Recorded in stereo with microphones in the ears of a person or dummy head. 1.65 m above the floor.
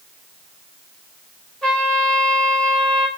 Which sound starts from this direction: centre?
A trumpet, at 1.6 s.